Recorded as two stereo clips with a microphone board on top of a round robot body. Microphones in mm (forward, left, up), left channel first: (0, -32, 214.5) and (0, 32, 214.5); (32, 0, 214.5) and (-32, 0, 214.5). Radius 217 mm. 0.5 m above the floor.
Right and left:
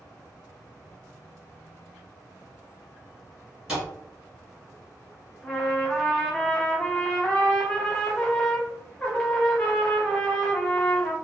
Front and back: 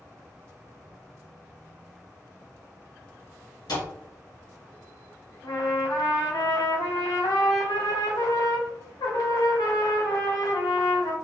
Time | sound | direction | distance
3.7 | a thud | 10° left | 1.5 m
5.4 | a trumpet | 15° right | 0.5 m